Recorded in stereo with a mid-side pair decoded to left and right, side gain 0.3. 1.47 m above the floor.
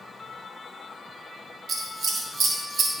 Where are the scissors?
60° right, 1.6 m.